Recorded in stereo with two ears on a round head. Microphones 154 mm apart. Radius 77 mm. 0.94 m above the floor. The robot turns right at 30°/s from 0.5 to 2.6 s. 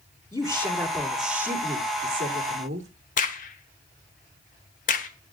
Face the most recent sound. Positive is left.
turn(degrees=50)  # may be behind; listen again after turning